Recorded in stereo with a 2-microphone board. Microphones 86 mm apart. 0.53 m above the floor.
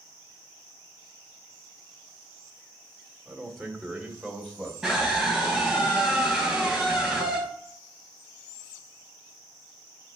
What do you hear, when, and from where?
3.2 s a man speaking: 5° left (ahead or behind), 1.7 m; by 4.7 s centre (ahead or behind), 2.5 m
4.8 s a scream: centre (ahead or behind), 4 m